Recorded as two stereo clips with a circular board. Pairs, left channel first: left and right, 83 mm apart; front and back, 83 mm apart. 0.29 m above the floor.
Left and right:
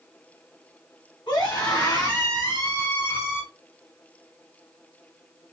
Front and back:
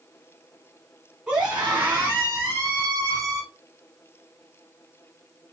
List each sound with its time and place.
1.3 s a scream: 100° left, 2.5 m; by 3.4 s 140° left, 3 m